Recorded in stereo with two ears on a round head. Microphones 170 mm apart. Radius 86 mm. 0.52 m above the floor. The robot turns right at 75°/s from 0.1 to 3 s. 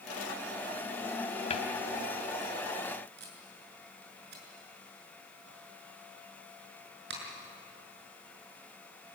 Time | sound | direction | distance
1.5 | a cupboard door | 35° left (ahead or behind) | 2.5 m
3.2 | tape being pulled | 60° right (ahead or behind) | 6 m